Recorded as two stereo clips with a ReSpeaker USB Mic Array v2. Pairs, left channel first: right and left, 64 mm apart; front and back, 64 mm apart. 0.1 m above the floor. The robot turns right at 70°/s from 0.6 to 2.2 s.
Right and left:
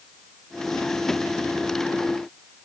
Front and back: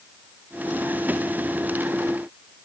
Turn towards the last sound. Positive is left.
No sound to turn to.